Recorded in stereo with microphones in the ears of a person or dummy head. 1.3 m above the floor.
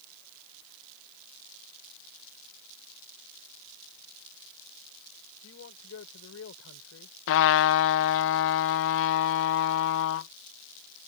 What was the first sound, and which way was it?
A man speaking, 75° left (ahead or behind).